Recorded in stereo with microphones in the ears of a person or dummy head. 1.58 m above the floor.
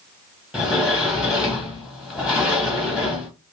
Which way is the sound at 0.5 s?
Centre (ahead or behind).